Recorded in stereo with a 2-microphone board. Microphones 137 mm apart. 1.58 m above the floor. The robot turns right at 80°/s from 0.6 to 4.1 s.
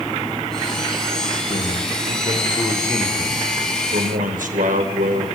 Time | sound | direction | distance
1.5 | a man speaking | 55° left | 5.5 m